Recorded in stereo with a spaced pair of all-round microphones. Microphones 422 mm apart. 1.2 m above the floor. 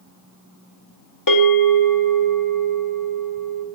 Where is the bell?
50° left (ahead or behind), 1.4 m.